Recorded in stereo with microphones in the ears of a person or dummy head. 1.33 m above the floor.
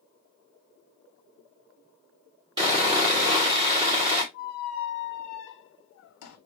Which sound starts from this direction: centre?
Sawing, at 2.6 s.